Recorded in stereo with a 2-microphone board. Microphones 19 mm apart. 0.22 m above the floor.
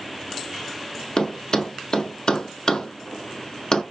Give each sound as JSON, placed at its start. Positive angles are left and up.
{"t": 1.2, "sound": "a thud", "side_deg": 40, "distance_m": 0.6}